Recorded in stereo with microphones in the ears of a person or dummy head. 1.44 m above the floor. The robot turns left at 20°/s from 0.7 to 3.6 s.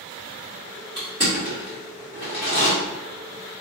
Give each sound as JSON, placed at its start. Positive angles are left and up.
{"t": 1.0, "sound": "crushing", "side_deg": -20, "distance_m": 1.2}